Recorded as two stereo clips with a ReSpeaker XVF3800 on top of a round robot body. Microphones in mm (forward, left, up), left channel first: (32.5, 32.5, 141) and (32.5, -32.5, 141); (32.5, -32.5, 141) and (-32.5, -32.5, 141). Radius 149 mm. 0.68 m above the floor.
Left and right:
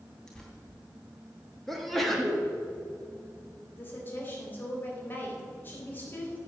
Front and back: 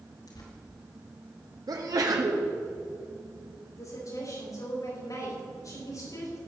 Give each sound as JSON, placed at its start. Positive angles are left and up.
{"t": 0.3, "sound": "tearing paper", "azimuth_deg": 10, "distance_m": 3.0}
{"t": 1.7, "sound": "a sneeze", "azimuth_deg": 180, "distance_m": 1.7}
{"t": 3.7, "sound": "a woman speaking", "azimuth_deg": 30, "distance_m": 4.0}